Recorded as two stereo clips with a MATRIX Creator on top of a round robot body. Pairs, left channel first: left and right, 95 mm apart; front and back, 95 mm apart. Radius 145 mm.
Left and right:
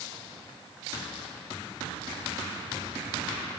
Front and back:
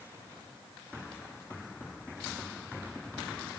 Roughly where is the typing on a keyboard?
No typing on a keyboard in this recording.